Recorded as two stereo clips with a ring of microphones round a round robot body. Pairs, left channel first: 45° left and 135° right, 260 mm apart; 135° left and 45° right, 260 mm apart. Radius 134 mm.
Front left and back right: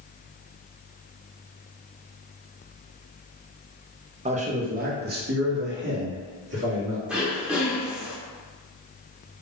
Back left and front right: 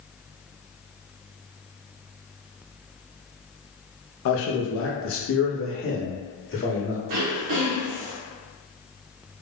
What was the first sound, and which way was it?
A man speaking, 160° left.